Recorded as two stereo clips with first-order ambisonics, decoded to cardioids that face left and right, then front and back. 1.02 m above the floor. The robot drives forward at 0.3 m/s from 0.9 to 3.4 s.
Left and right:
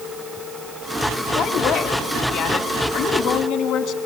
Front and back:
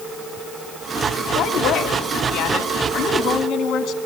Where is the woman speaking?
45° left, 2.5 m; by 4.0 s 55° left, 1.9 m.